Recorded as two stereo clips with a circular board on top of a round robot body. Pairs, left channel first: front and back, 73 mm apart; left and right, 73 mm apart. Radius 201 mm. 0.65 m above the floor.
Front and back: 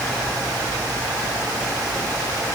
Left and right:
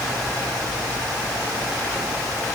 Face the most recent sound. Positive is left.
No sound to turn to.